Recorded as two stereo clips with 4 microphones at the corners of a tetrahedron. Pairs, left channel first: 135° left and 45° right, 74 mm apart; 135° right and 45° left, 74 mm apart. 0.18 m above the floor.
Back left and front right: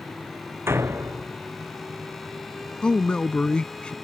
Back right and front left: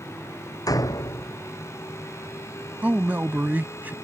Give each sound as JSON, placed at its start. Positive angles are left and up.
{"t": 0.7, "sound": "a door slam", "azimuth_deg": -100}
{"t": 2.8, "sound": "a man speaking", "azimuth_deg": 75}